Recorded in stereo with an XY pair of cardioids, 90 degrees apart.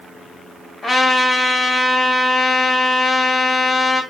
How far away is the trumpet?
About 1.8 m.